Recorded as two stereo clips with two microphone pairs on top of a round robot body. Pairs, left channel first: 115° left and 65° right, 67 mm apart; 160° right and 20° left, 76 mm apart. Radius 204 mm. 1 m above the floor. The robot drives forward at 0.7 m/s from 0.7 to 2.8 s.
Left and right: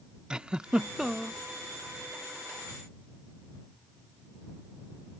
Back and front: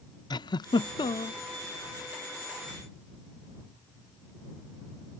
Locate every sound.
0.3 s a giggle: 140° right; by 1.4 s 150° right